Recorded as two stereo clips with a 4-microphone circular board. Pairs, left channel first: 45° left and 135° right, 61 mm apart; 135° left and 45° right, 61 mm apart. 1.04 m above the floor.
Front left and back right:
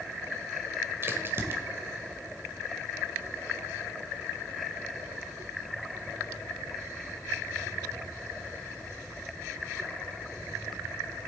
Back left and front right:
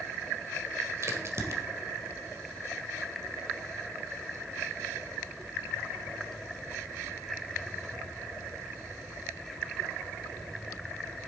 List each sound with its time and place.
1.0 s a crack: 85° right, 1.7 m